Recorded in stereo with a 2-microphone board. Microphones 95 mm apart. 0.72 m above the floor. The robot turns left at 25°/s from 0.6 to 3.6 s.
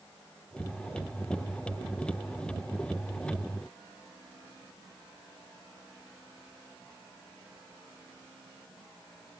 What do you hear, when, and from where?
Only background noise.